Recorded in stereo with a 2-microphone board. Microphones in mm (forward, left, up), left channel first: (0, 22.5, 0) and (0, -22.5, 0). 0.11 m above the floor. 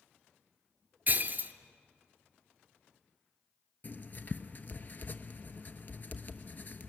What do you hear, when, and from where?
1.1 s breaking glass: 40° right (ahead or behind), 0.9 m
3.8 s writing: 40° left (ahead or behind), 0.9 m